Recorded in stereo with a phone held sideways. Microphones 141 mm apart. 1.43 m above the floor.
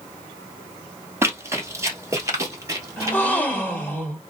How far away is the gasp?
About 1.4 m.